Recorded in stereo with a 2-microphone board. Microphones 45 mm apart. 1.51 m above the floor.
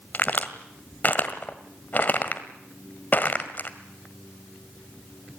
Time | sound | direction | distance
0.1 | a crack | 40° left (ahead or behind) | 1.8 m